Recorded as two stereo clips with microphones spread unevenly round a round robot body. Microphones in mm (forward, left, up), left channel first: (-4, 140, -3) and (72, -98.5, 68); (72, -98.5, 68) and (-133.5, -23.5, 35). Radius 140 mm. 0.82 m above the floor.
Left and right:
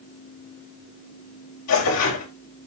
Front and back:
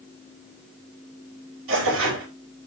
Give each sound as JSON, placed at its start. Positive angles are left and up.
{"t": 1.7, "sound": "tearing paper", "azimuth_deg": 130, "distance_m": 4.0}